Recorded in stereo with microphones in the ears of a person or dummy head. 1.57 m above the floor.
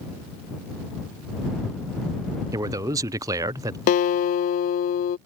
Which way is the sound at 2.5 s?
15° right (ahead or behind).